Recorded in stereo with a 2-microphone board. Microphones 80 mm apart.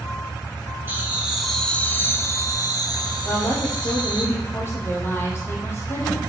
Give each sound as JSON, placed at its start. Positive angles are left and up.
{"t": 0.9, "sound": "laughter", "side_deg": -30, "distance_m": 1.3}
{"t": 3.2, "sound": "a woman speaking", "side_deg": 30, "distance_m": 4.0}